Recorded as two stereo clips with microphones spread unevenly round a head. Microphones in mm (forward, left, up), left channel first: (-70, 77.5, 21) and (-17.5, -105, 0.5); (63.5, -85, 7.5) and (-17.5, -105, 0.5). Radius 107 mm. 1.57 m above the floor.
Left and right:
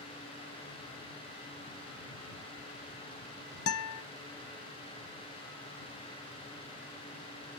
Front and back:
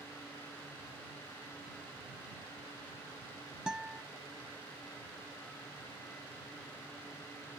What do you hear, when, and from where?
3.7 s a guitar: 110° left